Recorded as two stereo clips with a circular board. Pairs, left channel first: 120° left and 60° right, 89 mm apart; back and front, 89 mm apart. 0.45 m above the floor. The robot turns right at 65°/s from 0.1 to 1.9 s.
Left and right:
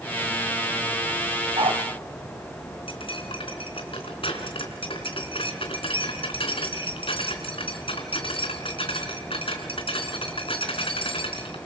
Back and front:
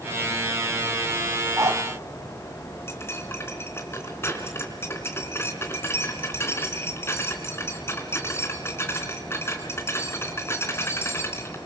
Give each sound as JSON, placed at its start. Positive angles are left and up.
{"t": 1.6, "sound": "a dog barking", "azimuth_deg": -60, "distance_m": 2.0}
{"t": 2.9, "sound": "cutlery clinking", "azimuth_deg": 120, "distance_m": 3.5}